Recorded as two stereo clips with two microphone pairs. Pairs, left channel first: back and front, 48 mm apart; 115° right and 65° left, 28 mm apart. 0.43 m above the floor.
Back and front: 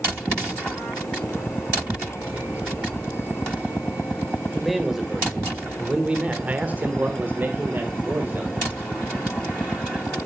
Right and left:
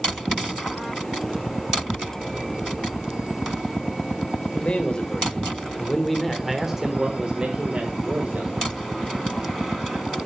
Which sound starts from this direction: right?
A man speaking, at 4.5 s.